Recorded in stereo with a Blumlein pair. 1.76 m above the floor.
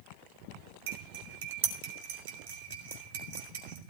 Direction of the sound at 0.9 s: 55° right.